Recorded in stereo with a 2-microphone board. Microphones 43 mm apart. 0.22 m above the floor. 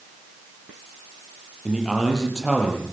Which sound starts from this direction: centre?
A man speaking, at 1.6 s.